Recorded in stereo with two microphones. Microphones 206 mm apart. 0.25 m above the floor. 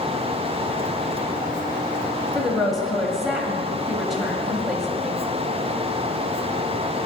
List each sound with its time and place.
2.4 s a woman speaking: centre (ahead or behind), 0.9 m